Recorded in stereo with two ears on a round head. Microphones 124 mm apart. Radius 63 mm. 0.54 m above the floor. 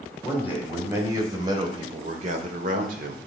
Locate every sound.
0.2 s a man speaking: 10° right (ahead or behind), 2.5 m; by 3.2 s 65° right (ahead or behind), 1.5 m